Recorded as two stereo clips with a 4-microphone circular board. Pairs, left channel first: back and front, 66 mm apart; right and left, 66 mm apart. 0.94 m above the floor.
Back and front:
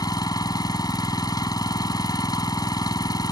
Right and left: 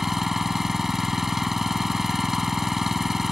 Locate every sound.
0.0 s an engine running: 175° left